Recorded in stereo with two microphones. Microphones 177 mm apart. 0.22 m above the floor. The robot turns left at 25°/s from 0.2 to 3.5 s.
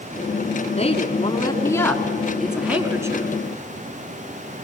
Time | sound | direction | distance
0.8 | a woman speaking | 40° left | 2.5 m